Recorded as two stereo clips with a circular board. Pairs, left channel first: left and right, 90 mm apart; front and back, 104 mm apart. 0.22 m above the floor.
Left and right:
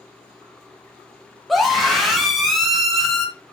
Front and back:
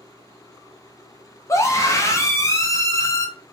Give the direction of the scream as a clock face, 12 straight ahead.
12 o'clock.